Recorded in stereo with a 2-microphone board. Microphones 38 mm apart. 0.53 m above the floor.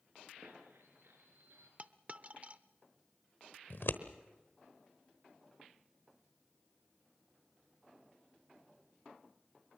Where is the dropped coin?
35° right (ahead or behind), 0.6 m.